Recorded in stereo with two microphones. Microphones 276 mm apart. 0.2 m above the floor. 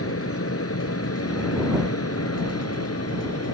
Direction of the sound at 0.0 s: 60° left (ahead or behind).